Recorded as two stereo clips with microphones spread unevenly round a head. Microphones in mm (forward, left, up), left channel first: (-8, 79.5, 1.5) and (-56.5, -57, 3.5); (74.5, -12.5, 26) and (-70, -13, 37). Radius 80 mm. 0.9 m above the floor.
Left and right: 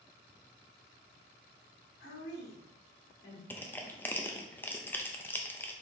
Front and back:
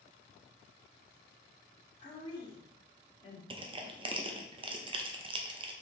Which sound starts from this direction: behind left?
Crushing, at 3.5 s.